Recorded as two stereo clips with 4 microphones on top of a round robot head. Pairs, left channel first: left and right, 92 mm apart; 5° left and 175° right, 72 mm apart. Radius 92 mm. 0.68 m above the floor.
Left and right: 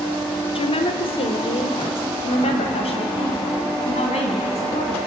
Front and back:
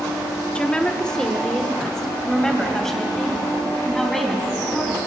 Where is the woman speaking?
80° left, 1.9 m; by 5.1 s 90° left, 7 m.